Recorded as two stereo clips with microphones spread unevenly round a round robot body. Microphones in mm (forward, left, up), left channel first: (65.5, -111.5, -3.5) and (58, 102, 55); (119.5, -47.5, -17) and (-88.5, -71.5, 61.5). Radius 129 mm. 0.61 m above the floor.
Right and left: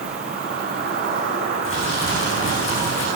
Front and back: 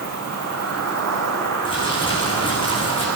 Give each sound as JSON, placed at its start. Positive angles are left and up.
{"t": 0.0, "sound": "an insect", "azimuth_deg": 150, "distance_m": 5.0}
{"t": 1.6, "sound": "crumpling", "azimuth_deg": -60, "distance_m": 9.5}